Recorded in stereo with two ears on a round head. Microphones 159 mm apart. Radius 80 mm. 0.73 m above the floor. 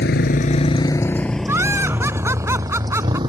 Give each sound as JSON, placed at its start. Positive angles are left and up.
{"t": 0.0, "sound": "a motorcycle", "side_deg": 65}
{"t": 1.5, "sound": "laughter", "side_deg": -15}